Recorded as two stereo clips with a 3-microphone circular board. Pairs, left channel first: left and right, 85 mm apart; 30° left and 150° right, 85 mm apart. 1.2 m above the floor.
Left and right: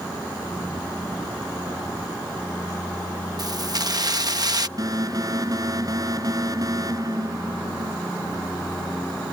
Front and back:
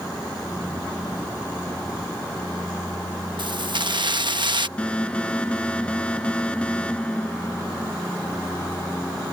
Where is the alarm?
45° right.